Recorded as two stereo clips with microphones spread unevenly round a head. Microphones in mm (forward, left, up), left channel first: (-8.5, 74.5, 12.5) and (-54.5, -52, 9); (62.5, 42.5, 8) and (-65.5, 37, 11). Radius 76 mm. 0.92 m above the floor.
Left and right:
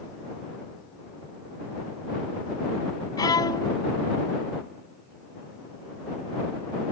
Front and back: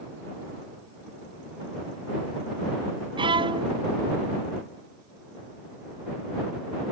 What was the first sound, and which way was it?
A violin, 130° left.